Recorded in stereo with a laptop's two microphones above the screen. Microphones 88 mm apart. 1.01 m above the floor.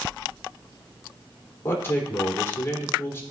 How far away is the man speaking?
About 3 m.